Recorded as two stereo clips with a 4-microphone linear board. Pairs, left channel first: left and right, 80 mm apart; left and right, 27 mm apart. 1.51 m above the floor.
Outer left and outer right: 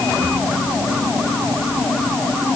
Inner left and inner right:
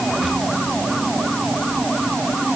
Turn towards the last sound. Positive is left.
No sound to turn to.